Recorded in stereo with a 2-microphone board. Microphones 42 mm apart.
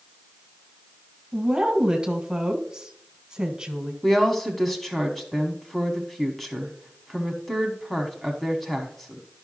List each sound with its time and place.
1.3 s a woman speaking: 20° right (ahead or behind), 1.3 m
4.0 s a woman speaking: 5° left (ahead or behind), 1.0 m